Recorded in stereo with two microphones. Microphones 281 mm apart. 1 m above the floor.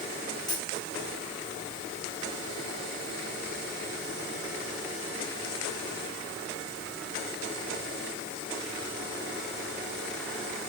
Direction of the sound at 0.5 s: 15° left (ahead or behind).